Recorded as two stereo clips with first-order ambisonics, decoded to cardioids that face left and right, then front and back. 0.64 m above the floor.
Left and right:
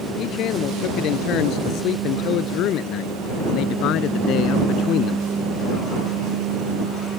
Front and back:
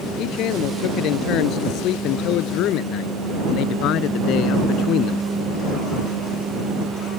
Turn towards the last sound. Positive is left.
turn(degrees=45)